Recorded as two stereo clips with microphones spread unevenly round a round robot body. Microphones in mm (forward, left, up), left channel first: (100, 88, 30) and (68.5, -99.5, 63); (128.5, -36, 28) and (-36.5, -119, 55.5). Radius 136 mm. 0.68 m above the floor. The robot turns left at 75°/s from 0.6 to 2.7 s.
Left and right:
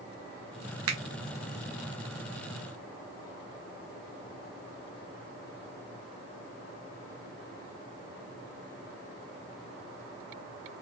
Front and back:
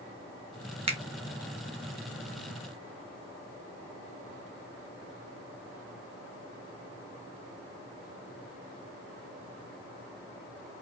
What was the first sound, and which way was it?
A finger snap, 90° right.